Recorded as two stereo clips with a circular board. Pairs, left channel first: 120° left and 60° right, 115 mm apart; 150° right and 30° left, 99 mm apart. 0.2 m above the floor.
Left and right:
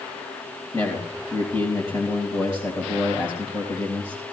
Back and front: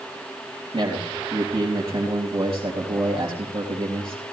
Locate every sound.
0.7 s a man speaking: 65° left, 3.5 m